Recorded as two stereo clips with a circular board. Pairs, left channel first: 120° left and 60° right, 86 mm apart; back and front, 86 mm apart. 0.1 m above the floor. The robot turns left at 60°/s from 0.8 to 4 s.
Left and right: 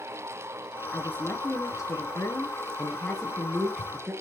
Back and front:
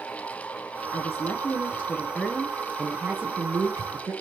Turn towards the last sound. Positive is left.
turn(degrees=0)